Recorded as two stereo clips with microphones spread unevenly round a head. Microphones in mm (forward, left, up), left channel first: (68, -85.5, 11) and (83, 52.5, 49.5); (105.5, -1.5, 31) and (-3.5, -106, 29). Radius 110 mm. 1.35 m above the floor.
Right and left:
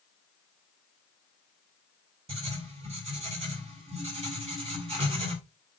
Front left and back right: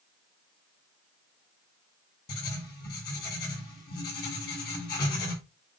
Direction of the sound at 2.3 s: 45° left.